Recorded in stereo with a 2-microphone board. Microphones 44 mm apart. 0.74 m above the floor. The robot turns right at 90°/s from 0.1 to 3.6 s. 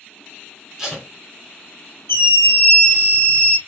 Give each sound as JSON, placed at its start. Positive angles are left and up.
{"t": 0.8, "sound": "tape being pulled", "side_deg": -10, "distance_m": 2.0}
{"t": 2.1, "sound": "a scream", "azimuth_deg": 105, "distance_m": 1.9}